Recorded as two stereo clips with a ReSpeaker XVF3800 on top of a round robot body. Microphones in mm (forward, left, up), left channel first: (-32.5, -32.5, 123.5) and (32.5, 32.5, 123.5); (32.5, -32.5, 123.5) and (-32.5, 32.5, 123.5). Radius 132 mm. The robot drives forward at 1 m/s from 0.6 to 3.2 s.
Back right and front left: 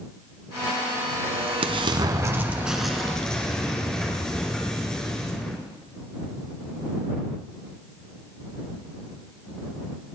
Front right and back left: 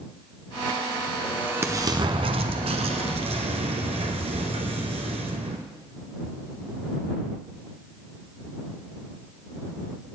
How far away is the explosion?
About 1.2 m.